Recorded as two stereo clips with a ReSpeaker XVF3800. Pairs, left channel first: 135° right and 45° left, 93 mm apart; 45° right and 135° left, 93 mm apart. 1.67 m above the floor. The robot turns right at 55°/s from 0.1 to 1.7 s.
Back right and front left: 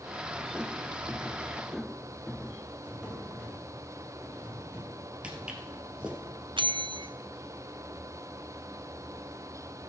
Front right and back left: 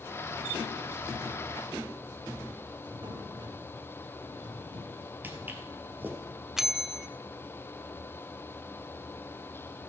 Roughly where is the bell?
Ahead left.